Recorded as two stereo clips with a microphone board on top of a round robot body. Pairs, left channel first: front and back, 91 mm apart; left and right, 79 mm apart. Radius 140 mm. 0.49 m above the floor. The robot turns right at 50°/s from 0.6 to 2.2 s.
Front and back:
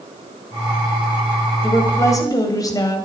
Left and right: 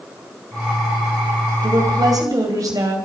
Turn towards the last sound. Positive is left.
turn(degrees=-50)